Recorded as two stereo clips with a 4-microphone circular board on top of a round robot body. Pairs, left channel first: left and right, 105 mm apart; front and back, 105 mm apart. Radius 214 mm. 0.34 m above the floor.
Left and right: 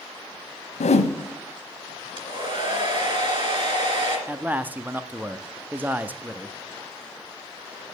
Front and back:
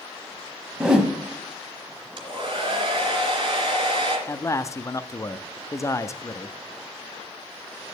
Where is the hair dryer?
135° right, 2.5 m.